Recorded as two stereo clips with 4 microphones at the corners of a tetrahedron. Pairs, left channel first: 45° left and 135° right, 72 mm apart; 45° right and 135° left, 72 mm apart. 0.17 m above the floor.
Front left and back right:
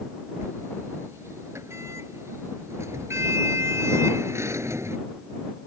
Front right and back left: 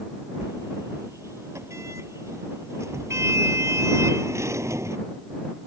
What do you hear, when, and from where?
0.4 s a sliding door: straight behind